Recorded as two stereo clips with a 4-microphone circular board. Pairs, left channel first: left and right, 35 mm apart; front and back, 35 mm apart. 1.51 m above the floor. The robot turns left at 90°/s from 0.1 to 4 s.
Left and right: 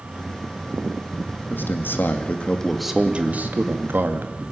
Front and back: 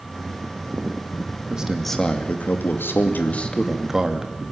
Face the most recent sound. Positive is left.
turn(degrees=-110)